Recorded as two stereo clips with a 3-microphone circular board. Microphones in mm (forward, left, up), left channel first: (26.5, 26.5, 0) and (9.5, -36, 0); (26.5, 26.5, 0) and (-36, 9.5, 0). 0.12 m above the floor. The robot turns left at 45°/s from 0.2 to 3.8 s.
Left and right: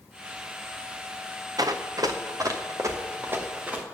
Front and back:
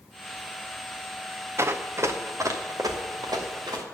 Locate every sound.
1.6 s running footsteps: 115° right, 1.1 m; by 3.8 s 175° right, 3 m